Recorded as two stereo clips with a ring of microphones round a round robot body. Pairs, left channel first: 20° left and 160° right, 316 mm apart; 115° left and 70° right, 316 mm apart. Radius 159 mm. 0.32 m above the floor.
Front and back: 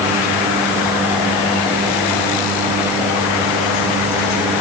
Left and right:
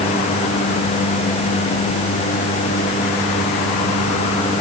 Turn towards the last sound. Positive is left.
No sound to turn to.